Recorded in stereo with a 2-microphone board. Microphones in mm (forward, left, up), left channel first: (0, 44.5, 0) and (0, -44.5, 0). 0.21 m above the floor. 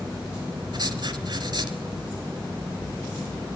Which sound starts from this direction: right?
Writing, at 0.7 s.